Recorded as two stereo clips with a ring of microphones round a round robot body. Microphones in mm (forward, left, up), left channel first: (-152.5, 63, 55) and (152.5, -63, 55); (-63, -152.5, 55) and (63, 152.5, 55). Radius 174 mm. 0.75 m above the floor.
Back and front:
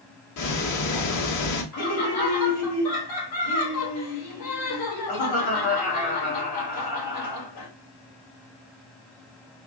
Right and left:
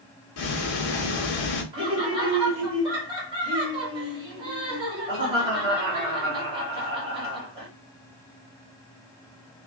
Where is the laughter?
140° left, 2 m.